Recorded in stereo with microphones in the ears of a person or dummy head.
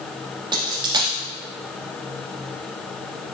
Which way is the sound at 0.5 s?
20° right (ahead or behind).